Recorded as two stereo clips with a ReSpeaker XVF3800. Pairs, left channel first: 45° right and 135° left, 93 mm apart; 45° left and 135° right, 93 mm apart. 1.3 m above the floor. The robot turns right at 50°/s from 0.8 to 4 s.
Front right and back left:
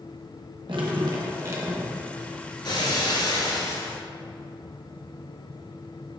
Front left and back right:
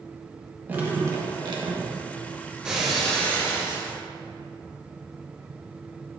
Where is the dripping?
160° left, 1.1 m; by 2.0 s 145° right, 1.1 m.